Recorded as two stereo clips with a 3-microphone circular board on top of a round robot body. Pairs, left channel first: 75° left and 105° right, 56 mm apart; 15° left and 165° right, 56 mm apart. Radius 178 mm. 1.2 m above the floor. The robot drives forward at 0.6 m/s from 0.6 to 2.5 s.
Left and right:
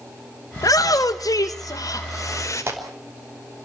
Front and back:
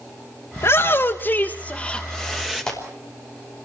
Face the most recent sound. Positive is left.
turn(degrees=-65)